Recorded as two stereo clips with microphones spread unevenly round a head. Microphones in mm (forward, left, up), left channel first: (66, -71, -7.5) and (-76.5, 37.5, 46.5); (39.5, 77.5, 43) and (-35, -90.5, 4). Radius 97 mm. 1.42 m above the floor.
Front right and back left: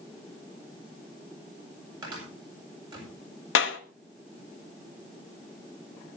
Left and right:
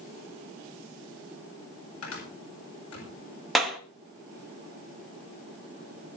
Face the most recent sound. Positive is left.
turn(degrees=-25)